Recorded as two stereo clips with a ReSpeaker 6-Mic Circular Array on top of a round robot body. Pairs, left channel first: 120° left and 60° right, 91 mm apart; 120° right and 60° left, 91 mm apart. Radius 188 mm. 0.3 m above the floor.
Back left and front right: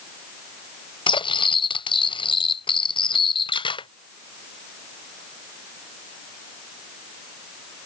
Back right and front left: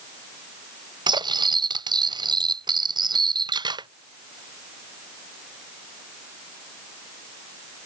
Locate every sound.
1.1 s cutlery clinking: 95° left